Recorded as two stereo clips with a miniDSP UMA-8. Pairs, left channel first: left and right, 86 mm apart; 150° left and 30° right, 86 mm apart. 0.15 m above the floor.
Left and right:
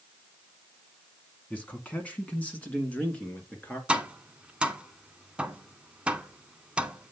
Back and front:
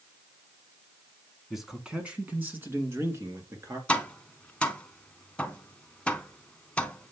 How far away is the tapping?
About 0.8 m.